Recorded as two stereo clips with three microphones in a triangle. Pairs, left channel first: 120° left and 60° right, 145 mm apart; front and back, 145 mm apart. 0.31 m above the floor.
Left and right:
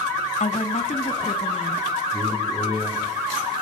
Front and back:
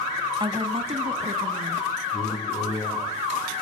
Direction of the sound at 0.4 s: 130° left.